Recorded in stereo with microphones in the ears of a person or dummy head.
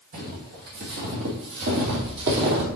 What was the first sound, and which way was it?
Footsteps, 45° right (ahead or behind).